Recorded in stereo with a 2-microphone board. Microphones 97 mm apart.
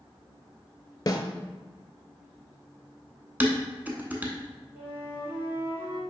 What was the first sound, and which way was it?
A snare drum, 40° left (ahead or behind).